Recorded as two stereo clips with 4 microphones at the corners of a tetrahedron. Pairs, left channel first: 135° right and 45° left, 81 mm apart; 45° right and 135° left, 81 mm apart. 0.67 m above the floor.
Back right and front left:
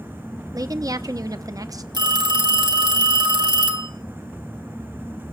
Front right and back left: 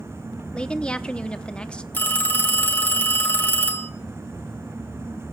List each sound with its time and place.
0.5 s a woman speaking: 25° left, 0.8 m
1.9 s a phone ringing: 20° left, 1.8 m